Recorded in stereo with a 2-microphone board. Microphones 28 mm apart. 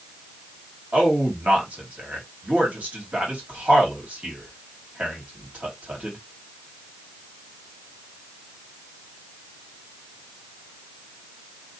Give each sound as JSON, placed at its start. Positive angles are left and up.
{"t": 0.9, "sound": "a man speaking", "side_deg": -65, "distance_m": 1.6}